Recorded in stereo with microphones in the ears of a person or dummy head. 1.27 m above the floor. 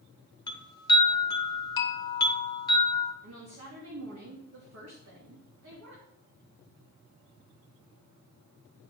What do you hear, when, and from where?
0.5 s a chime: 20° left (ahead or behind), 0.9 m
3.2 s a woman speaking: 80° right, 2.5 m